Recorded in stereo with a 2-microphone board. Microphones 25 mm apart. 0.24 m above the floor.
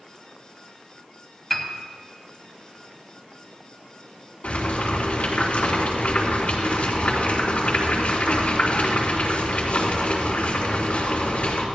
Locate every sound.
1.5 s a piano: 10° left (ahead or behind), 1.4 m
4.4 s boiling: 60° left (ahead or behind), 3.5 m